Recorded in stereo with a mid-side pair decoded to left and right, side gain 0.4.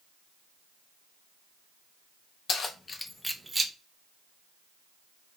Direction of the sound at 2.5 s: 60° left.